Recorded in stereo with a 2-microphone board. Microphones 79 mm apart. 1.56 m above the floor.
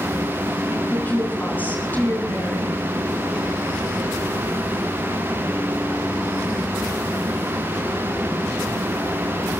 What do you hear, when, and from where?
0.9 s a woman speaking: 25° left (ahead or behind), 7 m